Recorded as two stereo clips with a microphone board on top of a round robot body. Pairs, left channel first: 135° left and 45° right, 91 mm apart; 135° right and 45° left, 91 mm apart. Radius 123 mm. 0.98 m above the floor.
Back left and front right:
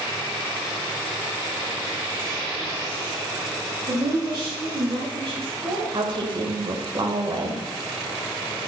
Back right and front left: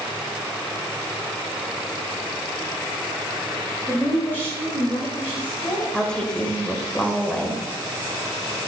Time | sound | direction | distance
3.9 | a woman speaking | 70° right | 2 m
5.9 | a woman speaking | 55° right | 1.5 m